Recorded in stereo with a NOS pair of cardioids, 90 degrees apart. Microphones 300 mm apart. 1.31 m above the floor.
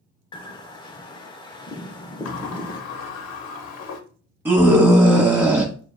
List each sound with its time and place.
0.3 s a bird: 15° left, 0.5 m
2.2 s a sliding door: 60° left, 0.7 m
4.5 s a scream: 15° right, 0.8 m